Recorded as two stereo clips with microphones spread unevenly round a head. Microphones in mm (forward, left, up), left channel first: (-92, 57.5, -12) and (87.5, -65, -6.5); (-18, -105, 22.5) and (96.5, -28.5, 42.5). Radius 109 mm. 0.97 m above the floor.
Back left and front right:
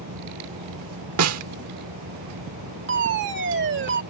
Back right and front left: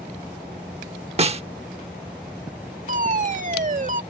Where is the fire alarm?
5° left.